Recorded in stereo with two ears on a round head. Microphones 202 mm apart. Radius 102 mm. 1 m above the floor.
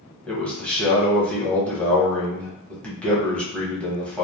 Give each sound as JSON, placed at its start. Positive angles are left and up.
{"t": 0.3, "sound": "a man speaking", "side_deg": 5, "distance_m": 1.0}